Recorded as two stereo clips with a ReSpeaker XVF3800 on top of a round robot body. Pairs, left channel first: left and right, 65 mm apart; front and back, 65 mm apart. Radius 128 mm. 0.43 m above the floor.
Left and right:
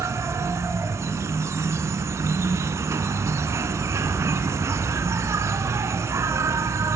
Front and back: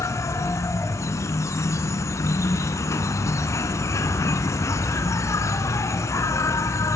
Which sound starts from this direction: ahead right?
An insect, at 0.0 s.